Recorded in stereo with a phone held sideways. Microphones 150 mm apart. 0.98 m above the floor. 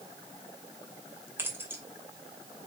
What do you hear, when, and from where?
1.4 s keys jangling: 15° right (ahead or behind), 2.5 m